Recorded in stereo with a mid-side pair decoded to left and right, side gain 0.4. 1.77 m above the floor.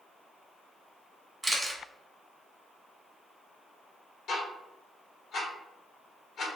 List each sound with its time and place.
1.4 s a camera shutter: 25° right, 1.2 m
4.3 s ticking: 70° left, 1.0 m